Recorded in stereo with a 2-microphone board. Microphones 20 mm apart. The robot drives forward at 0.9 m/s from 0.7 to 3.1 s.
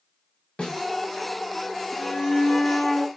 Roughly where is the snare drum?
Left.